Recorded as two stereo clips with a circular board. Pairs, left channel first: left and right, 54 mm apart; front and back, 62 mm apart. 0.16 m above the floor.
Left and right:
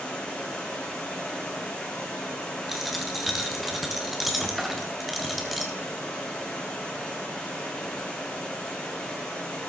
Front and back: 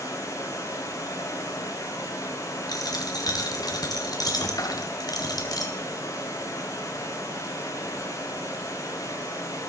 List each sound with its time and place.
0.0 s running water: 20° left, 6 m
2.7 s a dropped coin: straight ahead, 3 m